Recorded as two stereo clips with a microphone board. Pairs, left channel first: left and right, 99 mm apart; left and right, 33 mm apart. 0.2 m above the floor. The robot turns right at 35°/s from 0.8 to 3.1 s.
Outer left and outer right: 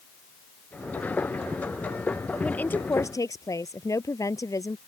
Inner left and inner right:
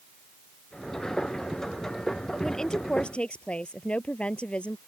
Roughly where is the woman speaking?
Centre.